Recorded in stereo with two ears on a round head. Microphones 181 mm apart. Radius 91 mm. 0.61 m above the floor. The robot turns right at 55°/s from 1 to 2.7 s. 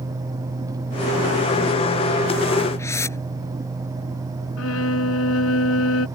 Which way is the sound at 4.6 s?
75° left (ahead or behind).